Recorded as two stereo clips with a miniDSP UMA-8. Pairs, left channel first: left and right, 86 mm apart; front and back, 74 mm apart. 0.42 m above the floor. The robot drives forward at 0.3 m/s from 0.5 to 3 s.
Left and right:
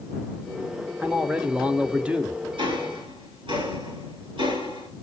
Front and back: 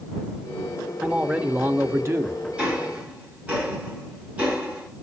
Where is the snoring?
I don't hear snoring.